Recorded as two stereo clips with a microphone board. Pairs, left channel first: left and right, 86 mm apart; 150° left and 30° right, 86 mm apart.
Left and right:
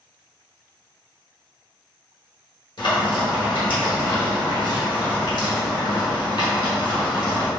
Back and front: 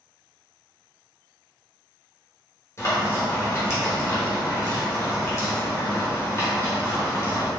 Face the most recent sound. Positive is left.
turn(degrees=100)